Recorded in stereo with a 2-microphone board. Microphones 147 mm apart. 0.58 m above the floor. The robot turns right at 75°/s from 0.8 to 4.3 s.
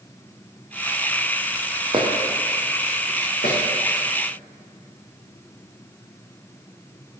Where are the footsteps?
40° right (ahead or behind), 1.2 m; by 3.6 s 75° left (ahead or behind), 2 m.